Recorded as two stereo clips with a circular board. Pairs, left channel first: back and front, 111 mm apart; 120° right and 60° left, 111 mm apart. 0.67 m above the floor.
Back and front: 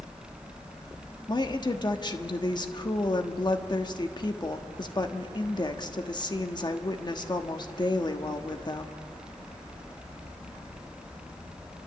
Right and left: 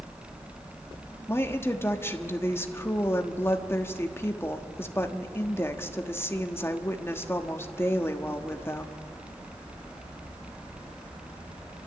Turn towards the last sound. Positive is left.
turn(degrees=-175)